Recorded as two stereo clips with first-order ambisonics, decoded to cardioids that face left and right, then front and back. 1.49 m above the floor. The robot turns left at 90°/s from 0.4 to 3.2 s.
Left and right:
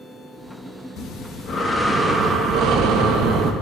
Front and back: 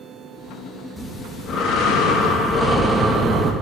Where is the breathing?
90° left, 1.0 m; by 3.5 s 115° right, 1.0 m.